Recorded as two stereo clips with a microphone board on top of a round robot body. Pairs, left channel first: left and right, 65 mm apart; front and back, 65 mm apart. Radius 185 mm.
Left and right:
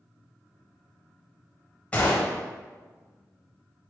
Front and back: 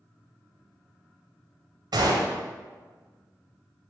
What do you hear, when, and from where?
1.9 s a gunshot: 165° left, 0.5 m